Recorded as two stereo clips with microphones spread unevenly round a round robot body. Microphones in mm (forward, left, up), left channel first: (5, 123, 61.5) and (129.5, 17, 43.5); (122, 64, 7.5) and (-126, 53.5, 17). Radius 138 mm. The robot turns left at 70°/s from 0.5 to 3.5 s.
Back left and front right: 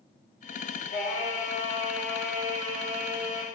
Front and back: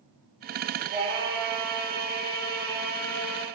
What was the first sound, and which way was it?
Singing, 130° left.